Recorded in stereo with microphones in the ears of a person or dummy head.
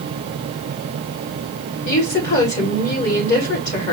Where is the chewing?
I don't hear chewing.